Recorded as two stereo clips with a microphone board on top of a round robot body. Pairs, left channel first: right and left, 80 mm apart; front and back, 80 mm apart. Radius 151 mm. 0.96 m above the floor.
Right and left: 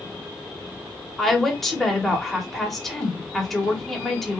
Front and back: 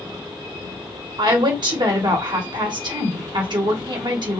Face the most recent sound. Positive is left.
turn(degrees=-175)